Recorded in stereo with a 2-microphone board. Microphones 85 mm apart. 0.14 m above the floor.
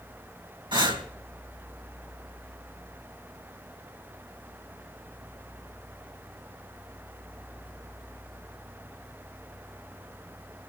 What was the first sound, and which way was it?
Breathing, 75° right (ahead or behind).